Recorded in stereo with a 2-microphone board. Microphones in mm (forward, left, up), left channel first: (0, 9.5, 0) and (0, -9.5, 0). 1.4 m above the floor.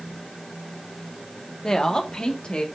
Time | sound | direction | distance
1.6 | a woman speaking | 35° left (ahead or behind) | 1.4 m